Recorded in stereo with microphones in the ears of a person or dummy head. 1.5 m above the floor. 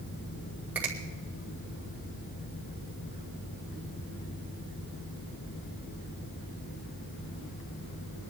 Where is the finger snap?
5° right (ahead or behind), 1.7 m.